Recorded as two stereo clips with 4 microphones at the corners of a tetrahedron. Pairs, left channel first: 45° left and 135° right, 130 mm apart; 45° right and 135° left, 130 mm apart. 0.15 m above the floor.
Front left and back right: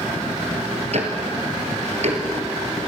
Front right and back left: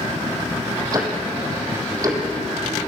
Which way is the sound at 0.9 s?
165° right.